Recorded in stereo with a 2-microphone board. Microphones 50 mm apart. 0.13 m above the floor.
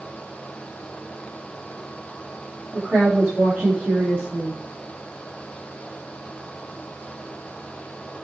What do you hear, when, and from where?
2.7 s a woman speaking: 40° right (ahead or behind), 7.5 m; by 4.6 s 45° right (ahead or behind), 9.5 m